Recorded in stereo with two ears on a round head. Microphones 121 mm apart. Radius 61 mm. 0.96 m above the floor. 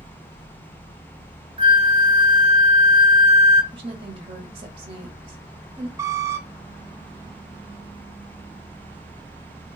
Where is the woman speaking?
40° right (ahead or behind), 1.6 m.